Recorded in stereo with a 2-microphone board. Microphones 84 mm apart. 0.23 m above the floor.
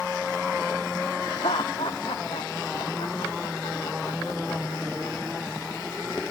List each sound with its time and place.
1.2 s laughter: 85° left